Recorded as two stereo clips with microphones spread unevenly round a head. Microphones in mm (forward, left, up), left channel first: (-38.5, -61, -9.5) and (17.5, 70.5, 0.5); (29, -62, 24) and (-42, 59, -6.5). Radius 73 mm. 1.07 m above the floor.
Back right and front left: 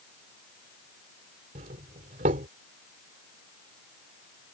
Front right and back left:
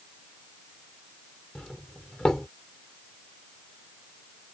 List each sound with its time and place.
1.6 s a doorbell: 25° left